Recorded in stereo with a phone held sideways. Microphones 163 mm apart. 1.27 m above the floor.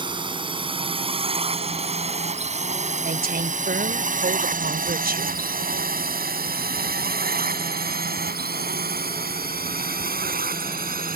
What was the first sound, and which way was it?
A drone, 30° right (ahead or behind).